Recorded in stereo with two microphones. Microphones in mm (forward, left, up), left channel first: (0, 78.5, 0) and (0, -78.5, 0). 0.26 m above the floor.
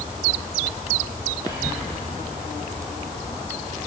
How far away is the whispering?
About 8 m.